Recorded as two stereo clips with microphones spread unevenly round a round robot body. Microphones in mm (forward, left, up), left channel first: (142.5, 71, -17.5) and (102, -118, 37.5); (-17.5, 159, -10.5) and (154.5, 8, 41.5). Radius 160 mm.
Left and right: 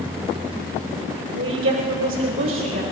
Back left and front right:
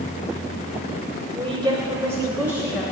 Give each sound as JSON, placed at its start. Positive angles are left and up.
{"t": 1.4, "sound": "a woman speaking", "azimuth_deg": -115, "distance_m": 2.0}